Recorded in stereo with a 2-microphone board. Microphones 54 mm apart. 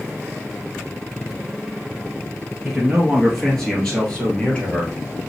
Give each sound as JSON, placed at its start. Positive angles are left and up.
{"t": 2.6, "sound": "a man speaking", "side_deg": 0, "distance_m": 2.0}